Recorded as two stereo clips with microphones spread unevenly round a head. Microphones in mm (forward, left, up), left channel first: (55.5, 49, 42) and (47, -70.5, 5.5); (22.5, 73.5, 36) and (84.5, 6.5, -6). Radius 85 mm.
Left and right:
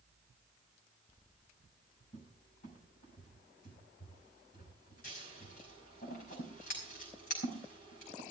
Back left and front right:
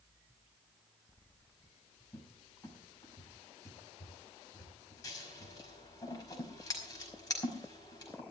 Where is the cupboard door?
85° left, 5.5 m.